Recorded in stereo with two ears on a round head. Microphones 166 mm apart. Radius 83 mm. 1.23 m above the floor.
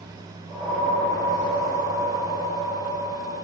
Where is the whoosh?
20° left (ahead or behind), 1.8 m.